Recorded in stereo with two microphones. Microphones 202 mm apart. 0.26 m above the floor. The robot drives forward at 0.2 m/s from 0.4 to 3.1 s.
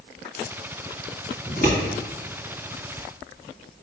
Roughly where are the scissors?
Left.